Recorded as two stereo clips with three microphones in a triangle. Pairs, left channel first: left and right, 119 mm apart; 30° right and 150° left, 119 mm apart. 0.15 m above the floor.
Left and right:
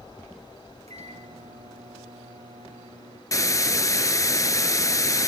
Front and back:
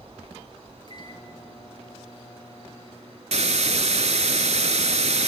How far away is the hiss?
About 0.7 m.